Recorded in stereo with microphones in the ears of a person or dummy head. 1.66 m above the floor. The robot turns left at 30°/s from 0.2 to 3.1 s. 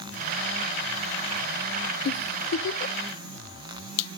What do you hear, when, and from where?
2.0 s a giggle: 50° left (ahead or behind), 0.7 m; by 3.0 s 65° left (ahead or behind), 0.7 m